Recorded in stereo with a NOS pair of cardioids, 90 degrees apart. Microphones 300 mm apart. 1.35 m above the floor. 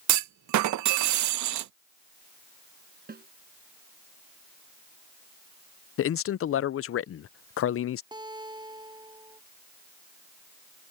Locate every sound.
0.1 s a clunk: 70° right
3.1 s a snare drum: 30° right
6.0 s a man speaking: 50° left
8.1 s a guitar: 15° right